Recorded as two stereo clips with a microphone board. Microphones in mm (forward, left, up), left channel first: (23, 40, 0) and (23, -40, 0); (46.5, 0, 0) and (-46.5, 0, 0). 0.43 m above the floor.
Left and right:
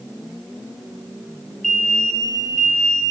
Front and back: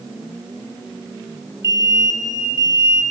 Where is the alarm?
170° left, 2.5 m.